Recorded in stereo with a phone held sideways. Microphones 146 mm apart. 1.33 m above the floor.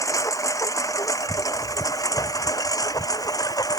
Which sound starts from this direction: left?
A lawn mower, at 0.0 s.